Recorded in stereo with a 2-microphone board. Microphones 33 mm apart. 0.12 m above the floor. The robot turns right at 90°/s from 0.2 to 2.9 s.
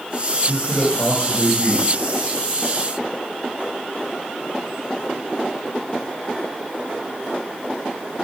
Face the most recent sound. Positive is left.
turn(degrees=-20)